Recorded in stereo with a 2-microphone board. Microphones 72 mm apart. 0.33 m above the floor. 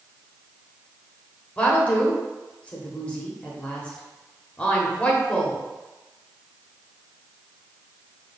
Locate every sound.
1.6 s a woman speaking: 20° left (ahead or behind), 0.9 m